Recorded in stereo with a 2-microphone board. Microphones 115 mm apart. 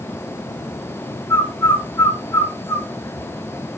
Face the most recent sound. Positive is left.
turn(degrees=20)  # may be behind; listen again after turning